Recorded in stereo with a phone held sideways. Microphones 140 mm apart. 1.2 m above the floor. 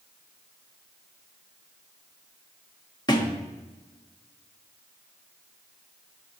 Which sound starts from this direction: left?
A thud, at 3.1 s.